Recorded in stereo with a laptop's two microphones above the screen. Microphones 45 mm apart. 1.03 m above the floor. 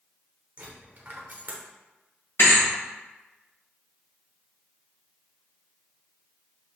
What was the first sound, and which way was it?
A dropped coin, 45° right (ahead or behind).